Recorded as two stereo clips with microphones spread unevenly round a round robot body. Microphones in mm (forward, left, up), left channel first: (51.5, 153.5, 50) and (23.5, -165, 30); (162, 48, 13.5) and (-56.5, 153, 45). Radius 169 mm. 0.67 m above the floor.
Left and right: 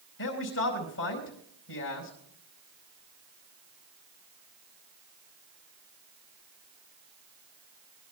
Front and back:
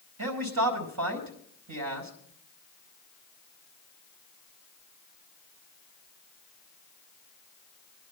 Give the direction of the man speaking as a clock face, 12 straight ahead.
7 o'clock.